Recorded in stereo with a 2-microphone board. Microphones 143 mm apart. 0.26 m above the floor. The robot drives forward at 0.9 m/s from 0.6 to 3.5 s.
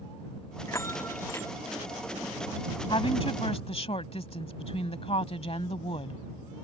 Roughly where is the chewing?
I don't hear chewing.